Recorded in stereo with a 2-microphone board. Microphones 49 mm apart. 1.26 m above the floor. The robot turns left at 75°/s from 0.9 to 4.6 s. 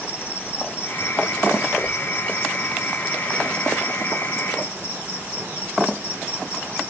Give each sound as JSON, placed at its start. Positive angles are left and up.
{"t": 0.0, "sound": "an insect", "azimuth_deg": 145, "distance_m": 3.5}